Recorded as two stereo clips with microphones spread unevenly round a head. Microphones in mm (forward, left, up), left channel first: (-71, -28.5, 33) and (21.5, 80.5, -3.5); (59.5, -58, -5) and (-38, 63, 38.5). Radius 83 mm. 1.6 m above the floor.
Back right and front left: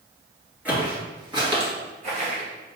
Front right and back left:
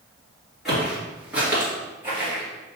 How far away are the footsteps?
About 1.6 m.